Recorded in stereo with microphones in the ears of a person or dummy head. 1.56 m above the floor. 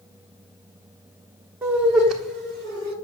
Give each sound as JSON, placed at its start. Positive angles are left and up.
{"t": 1.6, "sound": "laughter", "side_deg": -10, "distance_m": 1.2}